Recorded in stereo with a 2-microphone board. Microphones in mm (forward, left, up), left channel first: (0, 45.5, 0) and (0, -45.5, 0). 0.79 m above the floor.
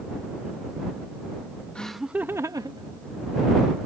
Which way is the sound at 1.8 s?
10° left (ahead or behind).